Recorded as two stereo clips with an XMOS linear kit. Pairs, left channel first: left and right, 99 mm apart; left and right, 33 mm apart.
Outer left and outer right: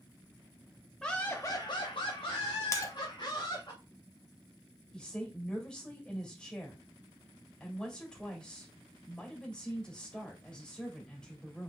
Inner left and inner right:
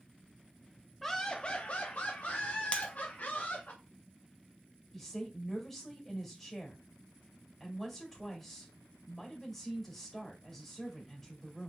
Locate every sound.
1.0 s laughter: 5° left (ahead or behind), 0.7 m; by 3.7 s 55° left (ahead or behind), 1.9 m
2.7 s breaking glass: 35° left (ahead or behind), 0.7 m
4.9 s a woman speaking: 10° left (ahead or behind), 2 m